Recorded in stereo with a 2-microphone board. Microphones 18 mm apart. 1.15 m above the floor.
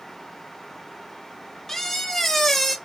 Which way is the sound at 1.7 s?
20° left (ahead or behind).